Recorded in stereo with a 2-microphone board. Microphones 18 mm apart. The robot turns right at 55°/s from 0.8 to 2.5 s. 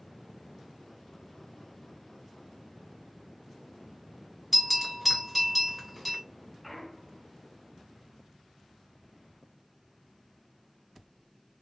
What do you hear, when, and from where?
4.5 s a bell: 5° right (ahead or behind), 1.8 m
6.6 s a clunk: 10° left (ahead or behind), 0.7 m